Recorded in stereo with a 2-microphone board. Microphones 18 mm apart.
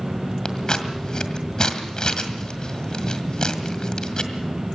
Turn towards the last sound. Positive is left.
turn(degrees=45)  # may be behind; listen again after turning